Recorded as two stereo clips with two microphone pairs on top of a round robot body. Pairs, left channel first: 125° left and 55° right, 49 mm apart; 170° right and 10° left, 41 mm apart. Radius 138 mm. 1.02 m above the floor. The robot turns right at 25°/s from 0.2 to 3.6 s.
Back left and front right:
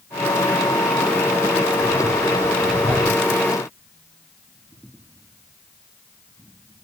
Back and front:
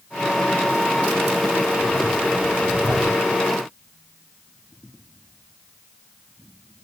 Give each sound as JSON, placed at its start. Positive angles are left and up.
{"t": 1.8, "sound": "breathing", "azimuth_deg": 40, "distance_m": 6.0}